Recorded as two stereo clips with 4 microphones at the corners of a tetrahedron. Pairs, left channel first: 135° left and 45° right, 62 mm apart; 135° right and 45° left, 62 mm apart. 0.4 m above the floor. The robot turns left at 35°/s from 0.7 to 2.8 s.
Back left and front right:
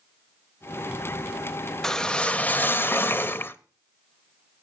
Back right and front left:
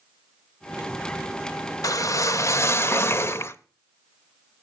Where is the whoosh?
145° right, 0.5 m; by 3.6 s 175° right, 0.5 m.